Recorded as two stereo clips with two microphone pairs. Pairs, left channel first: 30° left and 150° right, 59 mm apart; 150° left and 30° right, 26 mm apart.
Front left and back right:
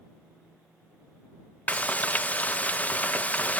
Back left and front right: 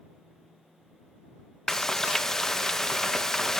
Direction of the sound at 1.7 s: 80° left.